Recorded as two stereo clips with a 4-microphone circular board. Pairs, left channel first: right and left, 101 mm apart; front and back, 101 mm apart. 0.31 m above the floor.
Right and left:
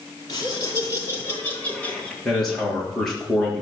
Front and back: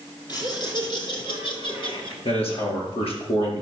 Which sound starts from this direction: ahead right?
Laughter, at 0.3 s.